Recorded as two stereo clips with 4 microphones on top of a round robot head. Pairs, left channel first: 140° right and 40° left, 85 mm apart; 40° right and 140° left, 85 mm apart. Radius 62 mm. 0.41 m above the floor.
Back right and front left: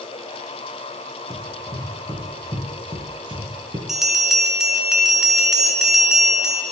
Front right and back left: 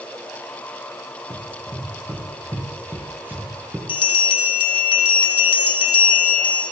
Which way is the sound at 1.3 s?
85° left.